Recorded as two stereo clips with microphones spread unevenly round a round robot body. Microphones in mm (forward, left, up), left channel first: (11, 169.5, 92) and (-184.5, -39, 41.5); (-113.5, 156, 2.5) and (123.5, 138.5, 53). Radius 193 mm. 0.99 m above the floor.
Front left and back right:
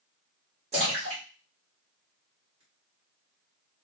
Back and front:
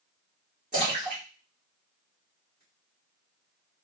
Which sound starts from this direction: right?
A splash, at 0.7 s.